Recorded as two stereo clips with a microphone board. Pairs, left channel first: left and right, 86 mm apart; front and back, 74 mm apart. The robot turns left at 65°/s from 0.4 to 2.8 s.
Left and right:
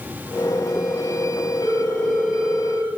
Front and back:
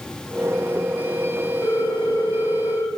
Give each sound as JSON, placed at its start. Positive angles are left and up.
{"t": 1.6, "sound": "a ringtone", "azimuth_deg": 50, "distance_m": 2.0}